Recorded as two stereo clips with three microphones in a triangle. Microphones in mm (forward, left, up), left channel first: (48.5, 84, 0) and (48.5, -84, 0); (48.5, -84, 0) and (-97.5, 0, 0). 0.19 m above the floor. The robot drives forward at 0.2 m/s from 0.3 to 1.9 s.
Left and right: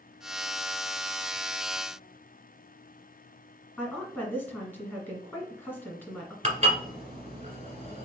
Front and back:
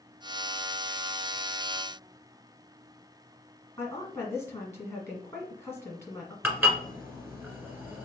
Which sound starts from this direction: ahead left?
A woman speaking, at 3.8 s.